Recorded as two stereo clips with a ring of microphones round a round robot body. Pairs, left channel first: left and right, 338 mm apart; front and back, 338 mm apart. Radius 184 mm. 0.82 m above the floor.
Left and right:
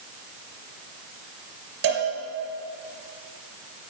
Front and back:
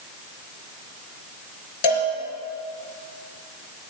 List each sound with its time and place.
1.8 s a cowbell: 25° right, 3.5 m